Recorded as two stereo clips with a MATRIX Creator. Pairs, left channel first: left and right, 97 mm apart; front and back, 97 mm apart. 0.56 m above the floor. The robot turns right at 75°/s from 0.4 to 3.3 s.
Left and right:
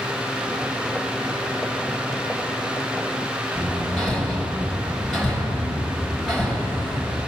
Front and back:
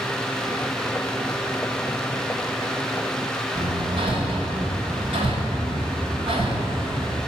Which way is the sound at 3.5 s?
175° left.